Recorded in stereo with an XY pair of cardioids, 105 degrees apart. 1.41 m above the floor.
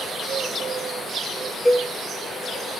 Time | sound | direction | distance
1.6 | a cowbell | 10° left | 1.4 m